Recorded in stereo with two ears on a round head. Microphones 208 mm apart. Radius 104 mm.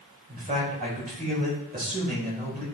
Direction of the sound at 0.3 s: 35° right (ahead or behind).